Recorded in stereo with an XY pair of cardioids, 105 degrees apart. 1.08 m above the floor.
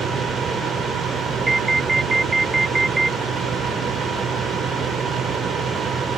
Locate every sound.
0.0 s a fan: 65° right
1.5 s an alarm: 20° right